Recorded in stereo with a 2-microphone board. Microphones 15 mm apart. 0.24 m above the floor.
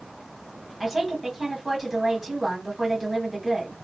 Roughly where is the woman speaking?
Centre.